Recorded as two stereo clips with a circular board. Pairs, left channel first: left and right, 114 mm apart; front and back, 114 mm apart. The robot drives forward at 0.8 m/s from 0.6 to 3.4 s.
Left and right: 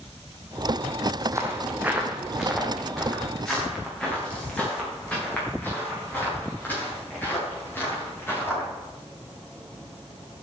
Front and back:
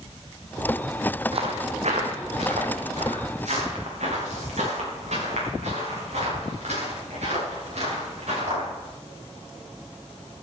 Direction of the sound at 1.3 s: 150° right.